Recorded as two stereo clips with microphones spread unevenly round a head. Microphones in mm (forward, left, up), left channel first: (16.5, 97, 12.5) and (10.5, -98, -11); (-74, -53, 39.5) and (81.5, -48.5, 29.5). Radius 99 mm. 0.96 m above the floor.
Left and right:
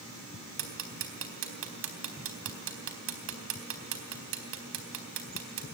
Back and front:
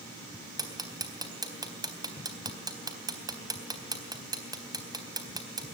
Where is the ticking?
65° right, 3.5 m.